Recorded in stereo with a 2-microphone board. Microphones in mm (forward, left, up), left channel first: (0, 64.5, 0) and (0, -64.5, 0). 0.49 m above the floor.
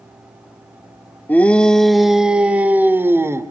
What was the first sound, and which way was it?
A shout, 15° left (ahead or behind).